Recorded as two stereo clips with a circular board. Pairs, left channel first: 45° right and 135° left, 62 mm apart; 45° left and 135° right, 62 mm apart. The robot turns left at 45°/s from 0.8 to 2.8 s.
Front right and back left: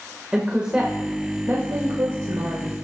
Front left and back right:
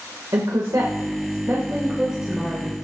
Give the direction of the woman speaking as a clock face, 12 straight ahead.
5 o'clock.